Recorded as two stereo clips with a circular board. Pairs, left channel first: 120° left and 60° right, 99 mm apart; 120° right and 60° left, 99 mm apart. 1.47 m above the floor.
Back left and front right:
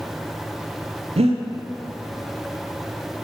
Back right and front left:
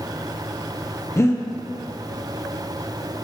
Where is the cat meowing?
I don't hear a cat meowing.